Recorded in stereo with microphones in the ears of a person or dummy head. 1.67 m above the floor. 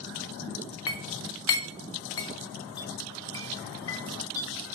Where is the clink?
20° left (ahead or behind), 1.2 m.